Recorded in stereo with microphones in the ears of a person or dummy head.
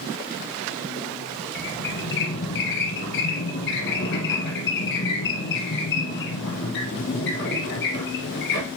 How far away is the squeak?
About 2.5 m.